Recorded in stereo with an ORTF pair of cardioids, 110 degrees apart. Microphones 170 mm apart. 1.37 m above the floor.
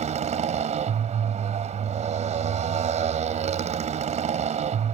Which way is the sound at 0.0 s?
45° right.